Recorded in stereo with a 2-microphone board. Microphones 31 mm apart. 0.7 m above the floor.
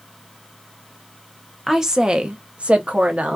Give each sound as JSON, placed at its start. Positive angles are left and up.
{"t": 1.7, "sound": "a woman speaking", "side_deg": -10, "distance_m": 0.5}